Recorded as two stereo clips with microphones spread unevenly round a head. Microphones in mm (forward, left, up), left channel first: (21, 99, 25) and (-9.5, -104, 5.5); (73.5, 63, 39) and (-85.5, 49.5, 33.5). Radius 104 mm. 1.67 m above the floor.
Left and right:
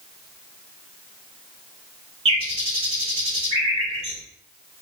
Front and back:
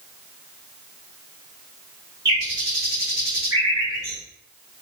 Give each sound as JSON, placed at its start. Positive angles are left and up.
{"t": 2.2, "sound": "a bird", "azimuth_deg": -125, "distance_m": 1.3}